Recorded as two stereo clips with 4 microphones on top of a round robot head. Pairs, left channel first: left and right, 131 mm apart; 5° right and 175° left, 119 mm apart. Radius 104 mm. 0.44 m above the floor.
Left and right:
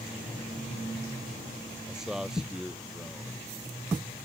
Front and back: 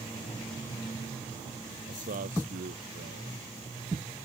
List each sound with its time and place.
1.9 s a man speaking: 175° right